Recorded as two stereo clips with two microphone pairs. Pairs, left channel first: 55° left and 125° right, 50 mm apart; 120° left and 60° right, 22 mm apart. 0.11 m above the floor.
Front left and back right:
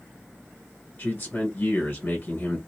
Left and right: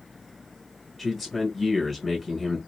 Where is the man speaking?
40° left, 1.2 m.